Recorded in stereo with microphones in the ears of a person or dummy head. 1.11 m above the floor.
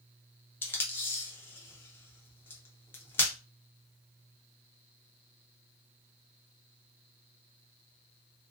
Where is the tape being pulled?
15° left (ahead or behind), 0.5 m.